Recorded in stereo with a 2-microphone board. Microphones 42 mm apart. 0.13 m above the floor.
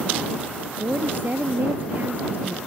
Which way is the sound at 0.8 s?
50° right (ahead or behind).